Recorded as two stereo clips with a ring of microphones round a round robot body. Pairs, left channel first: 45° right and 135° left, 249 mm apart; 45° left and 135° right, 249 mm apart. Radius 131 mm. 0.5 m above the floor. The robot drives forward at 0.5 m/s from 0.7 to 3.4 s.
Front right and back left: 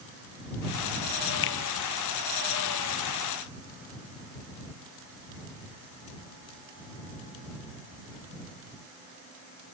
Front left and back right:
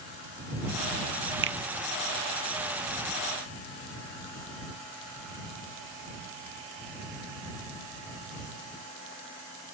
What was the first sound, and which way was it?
A finger snap, 90° right.